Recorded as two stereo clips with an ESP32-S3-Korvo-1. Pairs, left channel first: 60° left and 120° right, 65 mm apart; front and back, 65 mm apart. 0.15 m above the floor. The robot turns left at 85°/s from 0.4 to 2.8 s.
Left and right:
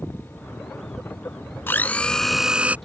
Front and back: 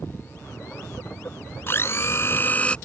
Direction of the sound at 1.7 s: 25° left.